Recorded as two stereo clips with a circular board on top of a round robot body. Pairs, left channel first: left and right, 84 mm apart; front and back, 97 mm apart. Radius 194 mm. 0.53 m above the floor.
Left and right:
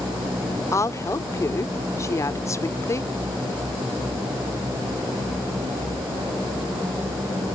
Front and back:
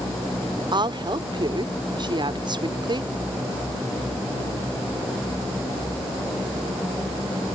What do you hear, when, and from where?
0.7 s a woman speaking: 140° left